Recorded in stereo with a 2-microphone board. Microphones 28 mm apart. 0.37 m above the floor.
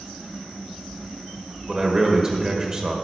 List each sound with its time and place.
1.7 s a man speaking: 25° right (ahead or behind), 1.4 m